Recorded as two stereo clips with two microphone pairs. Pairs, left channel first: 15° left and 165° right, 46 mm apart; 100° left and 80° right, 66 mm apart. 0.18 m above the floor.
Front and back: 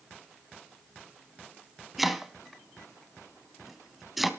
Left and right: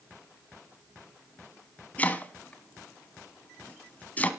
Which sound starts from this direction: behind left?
Chopping, at 2.0 s.